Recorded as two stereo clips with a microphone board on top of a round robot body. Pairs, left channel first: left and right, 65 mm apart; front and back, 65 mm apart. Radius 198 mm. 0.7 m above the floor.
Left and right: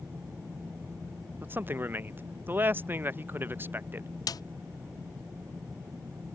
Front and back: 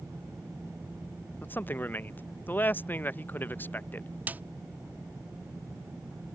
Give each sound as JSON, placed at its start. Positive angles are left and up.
{"t": 1.4, "sound": "a man speaking", "azimuth_deg": -45}
{"t": 4.3, "sound": "a snare drum", "azimuth_deg": 115}